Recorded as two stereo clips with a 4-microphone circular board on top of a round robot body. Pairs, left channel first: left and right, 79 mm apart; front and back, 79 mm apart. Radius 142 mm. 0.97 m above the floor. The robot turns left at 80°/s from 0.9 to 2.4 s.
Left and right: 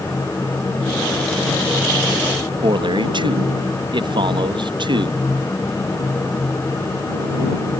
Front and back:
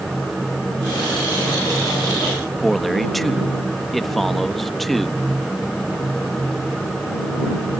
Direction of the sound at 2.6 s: 90° right.